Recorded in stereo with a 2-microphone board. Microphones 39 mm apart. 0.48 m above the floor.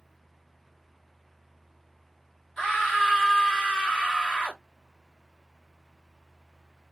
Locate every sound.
2.6 s a scream: 10° left (ahead or behind), 1.6 m